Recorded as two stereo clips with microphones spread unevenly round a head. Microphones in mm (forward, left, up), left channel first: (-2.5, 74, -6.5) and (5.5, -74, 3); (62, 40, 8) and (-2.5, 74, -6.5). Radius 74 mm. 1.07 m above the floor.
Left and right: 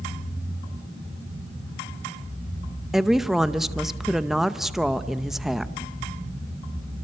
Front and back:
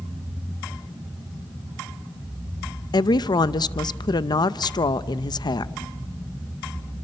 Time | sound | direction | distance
2.9 | a woman speaking | straight ahead | 0.7 m